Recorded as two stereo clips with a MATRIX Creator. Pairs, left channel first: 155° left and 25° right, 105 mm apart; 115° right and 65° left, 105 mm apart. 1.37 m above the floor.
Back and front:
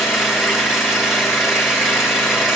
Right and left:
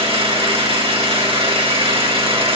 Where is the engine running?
65° left, 2.5 m.